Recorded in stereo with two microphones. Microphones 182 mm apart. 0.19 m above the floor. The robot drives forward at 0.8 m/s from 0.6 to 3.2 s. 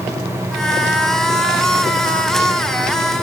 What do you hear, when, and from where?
Only background noise.